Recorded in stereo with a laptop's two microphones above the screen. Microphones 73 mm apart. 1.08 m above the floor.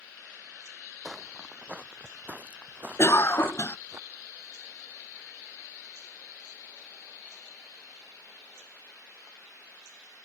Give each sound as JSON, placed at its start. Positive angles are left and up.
{"t": 1.1, "sound": "footsteps", "side_deg": -5}
{"t": 3.0, "sound": "a cough", "side_deg": 40}